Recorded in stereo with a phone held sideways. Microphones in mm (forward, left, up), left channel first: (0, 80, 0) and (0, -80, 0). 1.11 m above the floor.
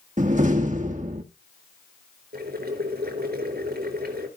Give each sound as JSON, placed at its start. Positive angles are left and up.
{"t": 0.2, "sound": "a door slam", "side_deg": -50, "distance_m": 1.0}
{"t": 2.3, "sound": "boiling", "side_deg": -85, "distance_m": 4.0}